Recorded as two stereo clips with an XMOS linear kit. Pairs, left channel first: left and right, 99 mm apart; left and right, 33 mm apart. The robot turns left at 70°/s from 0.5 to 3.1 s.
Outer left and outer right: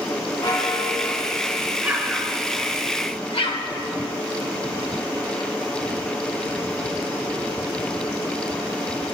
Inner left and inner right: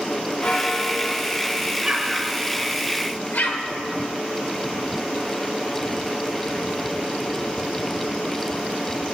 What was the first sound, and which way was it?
A bell, 125° left.